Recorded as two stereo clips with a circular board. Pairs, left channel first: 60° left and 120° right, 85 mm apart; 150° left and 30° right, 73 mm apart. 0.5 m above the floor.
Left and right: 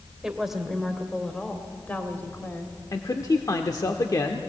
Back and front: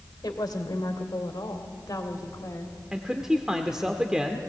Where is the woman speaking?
160° left, 1.7 m; by 2.8 s 115° left, 2.0 m.